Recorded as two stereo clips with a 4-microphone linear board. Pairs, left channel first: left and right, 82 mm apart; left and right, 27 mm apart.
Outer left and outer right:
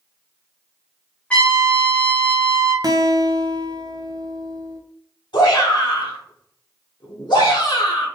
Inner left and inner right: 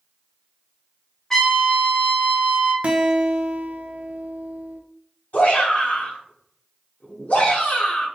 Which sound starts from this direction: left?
A shout, at 5.3 s.